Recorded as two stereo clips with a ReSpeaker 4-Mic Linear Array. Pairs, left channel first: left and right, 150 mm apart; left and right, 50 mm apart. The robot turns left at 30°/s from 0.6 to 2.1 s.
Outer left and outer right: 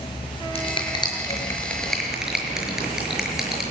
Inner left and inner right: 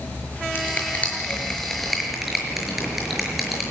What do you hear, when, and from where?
0.6 s a finger snap: 40° left (ahead or behind), 6 m; by 3.6 s 5° right (ahead or behind), 6 m